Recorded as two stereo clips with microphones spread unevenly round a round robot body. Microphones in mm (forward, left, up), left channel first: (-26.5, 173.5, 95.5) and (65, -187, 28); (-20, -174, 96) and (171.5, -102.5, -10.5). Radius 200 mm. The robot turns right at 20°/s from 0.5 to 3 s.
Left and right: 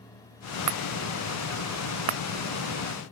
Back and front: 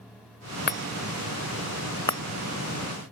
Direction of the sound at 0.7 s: 110° right.